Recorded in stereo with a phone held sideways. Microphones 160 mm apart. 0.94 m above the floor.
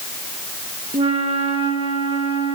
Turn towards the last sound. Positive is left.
turn(degrees=-35)  # may be behind; listen again after turning